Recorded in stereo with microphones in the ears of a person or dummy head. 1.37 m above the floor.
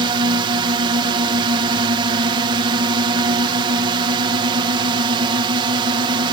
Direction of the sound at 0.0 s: 25° right (ahead or behind).